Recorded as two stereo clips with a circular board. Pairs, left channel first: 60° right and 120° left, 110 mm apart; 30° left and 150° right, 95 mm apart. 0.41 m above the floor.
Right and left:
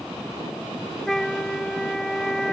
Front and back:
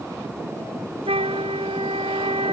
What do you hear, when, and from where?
1.1 s a flute: 145° right